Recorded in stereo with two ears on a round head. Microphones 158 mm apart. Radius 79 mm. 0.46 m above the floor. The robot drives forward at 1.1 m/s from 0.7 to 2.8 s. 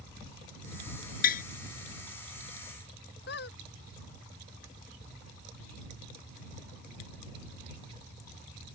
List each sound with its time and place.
1.2 s tapping: 55° left (ahead or behind); by 1.4 s 50° left (ahead or behind)
3.3 s a squeak: 65° left (ahead or behind)